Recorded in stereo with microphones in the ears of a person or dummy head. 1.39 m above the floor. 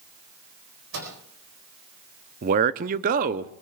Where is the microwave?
80° right, 4.5 m.